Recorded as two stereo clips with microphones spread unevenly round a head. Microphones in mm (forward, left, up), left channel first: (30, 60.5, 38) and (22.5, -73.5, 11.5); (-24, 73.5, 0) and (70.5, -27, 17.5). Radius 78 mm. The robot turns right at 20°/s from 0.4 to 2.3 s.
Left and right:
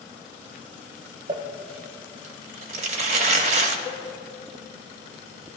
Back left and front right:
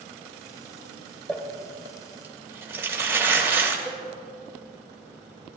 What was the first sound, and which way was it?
Crumpling, 145° right.